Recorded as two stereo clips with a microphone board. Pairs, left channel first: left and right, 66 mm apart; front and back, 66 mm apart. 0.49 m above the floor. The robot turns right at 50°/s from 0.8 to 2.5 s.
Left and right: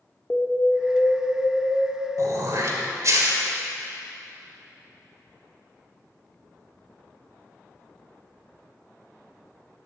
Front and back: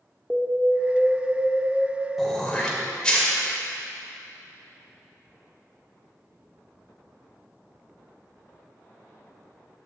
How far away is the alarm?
About 1.2 m.